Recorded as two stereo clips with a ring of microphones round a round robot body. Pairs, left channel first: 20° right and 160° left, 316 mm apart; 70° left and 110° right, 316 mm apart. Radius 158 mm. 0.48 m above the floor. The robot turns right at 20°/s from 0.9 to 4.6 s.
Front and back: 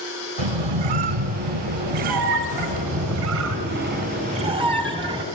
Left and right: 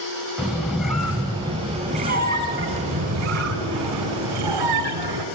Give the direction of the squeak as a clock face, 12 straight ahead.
7 o'clock.